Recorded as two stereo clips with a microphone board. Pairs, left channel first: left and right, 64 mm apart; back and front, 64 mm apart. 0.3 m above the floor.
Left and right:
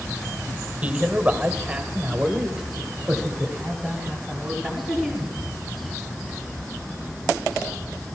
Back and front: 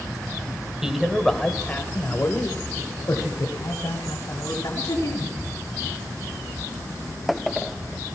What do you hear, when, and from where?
0.8 s a man speaking: 70° right, 0.9 m; by 5.3 s straight behind, 2.5 m